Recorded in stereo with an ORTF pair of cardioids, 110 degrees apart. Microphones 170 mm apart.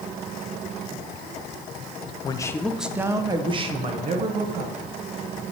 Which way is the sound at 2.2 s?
30° left.